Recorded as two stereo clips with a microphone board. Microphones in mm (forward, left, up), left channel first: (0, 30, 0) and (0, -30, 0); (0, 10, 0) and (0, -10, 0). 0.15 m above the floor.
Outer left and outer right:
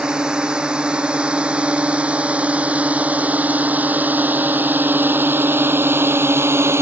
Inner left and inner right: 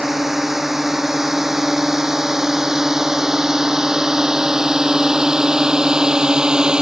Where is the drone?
10° right (ahead or behind); by 6.8 s 45° right (ahead or behind).